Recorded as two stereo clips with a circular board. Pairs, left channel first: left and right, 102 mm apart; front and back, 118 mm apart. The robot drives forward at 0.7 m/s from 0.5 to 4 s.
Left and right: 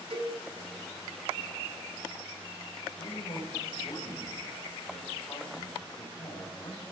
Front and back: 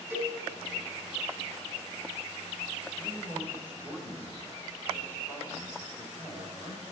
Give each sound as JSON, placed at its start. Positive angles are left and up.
{"t": 0.1, "sound": "a cowbell", "azimuth_deg": -110, "distance_m": 4.0}
{"t": 3.0, "sound": "a man speaking", "azimuth_deg": 100, "distance_m": 3.5}